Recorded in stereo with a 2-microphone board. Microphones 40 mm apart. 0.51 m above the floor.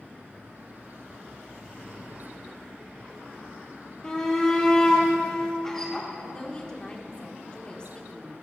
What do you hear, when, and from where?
4.0 s a shout: 15° left (ahead or behind), 1.1 m; by 6.1 s 10° left (ahead or behind), 1.3 m
6.2 s a woman speaking: 25° left (ahead or behind), 0.9 m